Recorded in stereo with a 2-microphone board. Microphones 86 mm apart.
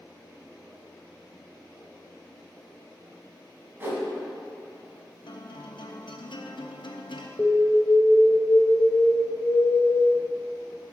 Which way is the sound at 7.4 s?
20° left (ahead or behind).